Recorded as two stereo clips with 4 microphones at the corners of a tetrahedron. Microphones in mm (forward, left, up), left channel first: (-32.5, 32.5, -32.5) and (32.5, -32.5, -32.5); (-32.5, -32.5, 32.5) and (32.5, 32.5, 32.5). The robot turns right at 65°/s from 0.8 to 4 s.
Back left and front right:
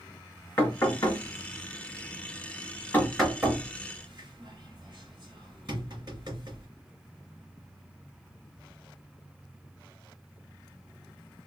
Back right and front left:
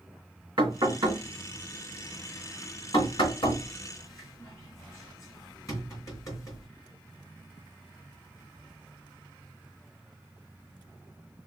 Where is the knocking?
70° left, 3 m; by 6.7 s 85° right, 3 m.